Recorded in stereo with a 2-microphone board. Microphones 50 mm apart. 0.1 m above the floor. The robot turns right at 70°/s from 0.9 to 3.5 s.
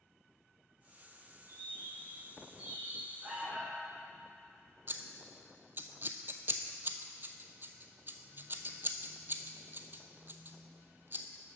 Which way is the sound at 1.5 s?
135° right.